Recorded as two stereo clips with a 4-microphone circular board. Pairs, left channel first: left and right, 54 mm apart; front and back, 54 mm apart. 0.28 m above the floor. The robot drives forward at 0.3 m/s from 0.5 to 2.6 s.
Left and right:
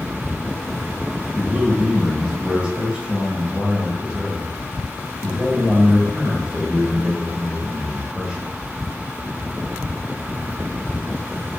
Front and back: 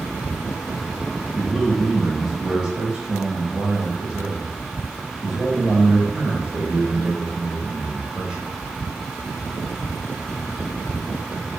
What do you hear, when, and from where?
1.4 s a man speaking: 55° right, 0.9 m; by 8.5 s 130° right, 0.9 m